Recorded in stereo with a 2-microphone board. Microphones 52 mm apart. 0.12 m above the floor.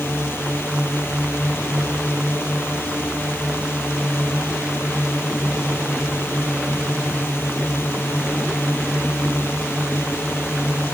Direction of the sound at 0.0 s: 55° left (ahead or behind).